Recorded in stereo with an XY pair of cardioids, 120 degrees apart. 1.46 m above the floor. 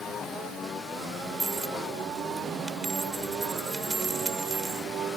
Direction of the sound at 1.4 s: 20° right.